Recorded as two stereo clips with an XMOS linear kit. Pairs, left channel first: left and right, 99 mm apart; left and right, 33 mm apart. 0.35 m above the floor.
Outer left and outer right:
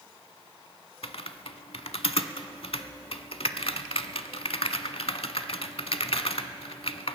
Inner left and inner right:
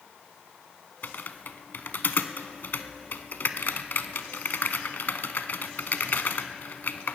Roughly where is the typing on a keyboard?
Left.